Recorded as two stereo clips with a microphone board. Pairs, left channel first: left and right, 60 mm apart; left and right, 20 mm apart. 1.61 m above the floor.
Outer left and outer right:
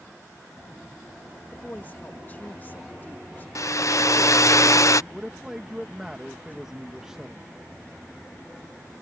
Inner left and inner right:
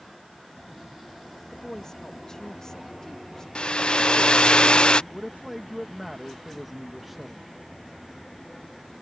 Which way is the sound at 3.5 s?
65° left (ahead or behind).